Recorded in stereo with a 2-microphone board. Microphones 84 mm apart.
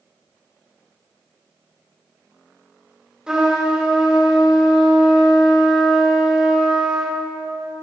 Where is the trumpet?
10° right (ahead or behind), 2.5 m.